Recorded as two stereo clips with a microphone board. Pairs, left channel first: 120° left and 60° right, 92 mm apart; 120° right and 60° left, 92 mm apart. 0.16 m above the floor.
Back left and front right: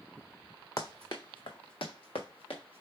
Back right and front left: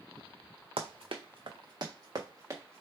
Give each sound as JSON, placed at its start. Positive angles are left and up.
{"t": 0.8, "sound": "running footsteps", "azimuth_deg": 70, "distance_m": 0.9}